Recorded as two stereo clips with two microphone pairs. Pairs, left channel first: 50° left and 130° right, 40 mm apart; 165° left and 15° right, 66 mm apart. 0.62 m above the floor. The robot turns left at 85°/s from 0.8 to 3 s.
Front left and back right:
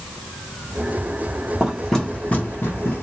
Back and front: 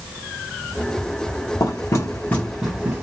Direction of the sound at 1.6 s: 165° left.